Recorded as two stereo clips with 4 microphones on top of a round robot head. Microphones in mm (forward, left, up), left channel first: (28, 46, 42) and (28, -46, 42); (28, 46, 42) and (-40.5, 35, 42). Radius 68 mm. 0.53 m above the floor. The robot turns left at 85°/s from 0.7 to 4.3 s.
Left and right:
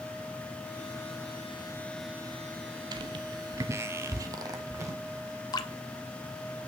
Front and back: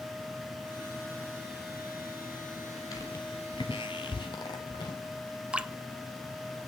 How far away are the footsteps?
About 1.2 m.